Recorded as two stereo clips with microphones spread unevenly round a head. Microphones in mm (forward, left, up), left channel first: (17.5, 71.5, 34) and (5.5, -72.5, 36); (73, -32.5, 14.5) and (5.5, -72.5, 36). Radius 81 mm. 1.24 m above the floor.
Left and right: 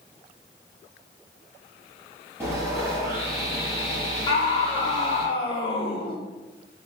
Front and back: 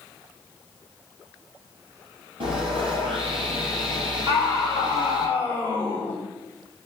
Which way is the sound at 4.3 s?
145° left.